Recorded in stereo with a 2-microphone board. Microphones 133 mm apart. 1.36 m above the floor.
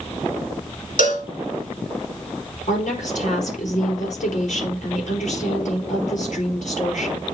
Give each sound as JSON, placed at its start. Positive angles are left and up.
{"t": 1.0, "sound": "a cowbell", "side_deg": 75, "distance_m": 2.0}
{"t": 2.7, "sound": "a woman speaking", "side_deg": 65, "distance_m": 5.0}